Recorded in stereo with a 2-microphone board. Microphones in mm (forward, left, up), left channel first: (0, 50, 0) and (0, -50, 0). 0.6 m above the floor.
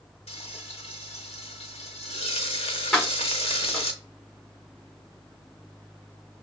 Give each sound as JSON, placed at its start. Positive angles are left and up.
{"t": 0.3, "sound": "frying", "side_deg": 85, "distance_m": 0.6}
{"t": 2.9, "sound": "keys jangling", "side_deg": 0, "distance_m": 1.4}